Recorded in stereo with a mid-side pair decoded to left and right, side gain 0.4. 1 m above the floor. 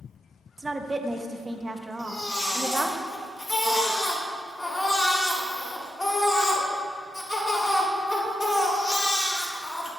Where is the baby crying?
25° left, 1.8 m.